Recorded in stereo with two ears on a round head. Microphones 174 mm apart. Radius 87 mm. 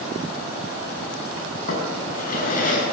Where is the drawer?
45° left (ahead or behind), 6.5 m.